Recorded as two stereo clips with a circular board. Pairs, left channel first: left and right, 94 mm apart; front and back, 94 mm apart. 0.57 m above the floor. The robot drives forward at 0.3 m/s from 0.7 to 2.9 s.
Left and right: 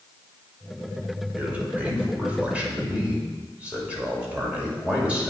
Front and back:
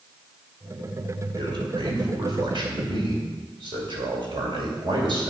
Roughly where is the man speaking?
Behind.